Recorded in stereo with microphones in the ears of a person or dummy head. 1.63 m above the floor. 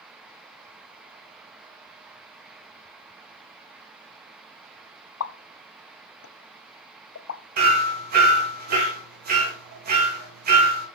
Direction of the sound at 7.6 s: 50° right (ahead or behind).